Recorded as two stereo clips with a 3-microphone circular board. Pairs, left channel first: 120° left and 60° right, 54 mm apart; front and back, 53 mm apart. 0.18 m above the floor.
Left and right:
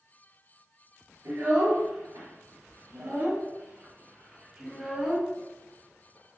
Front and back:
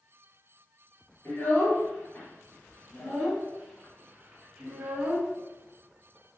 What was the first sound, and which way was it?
A child speaking, 45° right.